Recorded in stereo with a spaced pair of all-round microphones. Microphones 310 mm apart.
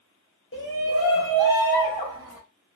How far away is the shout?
About 0.6 m.